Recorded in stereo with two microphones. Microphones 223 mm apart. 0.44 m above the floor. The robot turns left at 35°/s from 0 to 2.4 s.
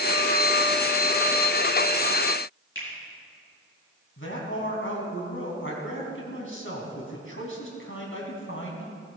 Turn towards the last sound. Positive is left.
turn(degrees=65)  # may be behind; listen again after turning